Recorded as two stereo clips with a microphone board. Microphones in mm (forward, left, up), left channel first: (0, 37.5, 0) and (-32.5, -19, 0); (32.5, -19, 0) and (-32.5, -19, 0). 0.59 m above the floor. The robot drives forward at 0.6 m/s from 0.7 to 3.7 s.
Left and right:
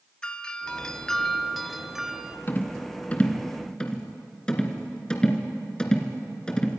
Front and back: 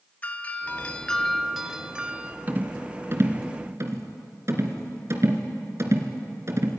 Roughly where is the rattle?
Behind left.